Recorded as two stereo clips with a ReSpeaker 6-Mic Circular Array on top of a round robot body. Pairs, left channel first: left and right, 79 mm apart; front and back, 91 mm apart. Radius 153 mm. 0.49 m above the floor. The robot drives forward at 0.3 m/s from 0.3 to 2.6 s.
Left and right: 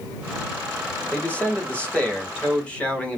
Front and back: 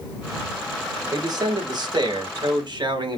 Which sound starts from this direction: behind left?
A man speaking, at 1.1 s.